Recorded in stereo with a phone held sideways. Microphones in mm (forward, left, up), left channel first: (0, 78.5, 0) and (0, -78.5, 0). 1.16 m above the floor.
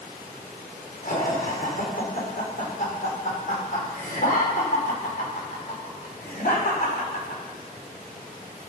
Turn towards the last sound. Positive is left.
turn(degrees=65)  # may be behind; listen again after turning